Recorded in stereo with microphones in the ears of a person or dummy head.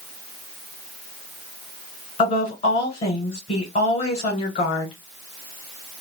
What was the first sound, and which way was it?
A woman speaking, 35° left (ahead or behind).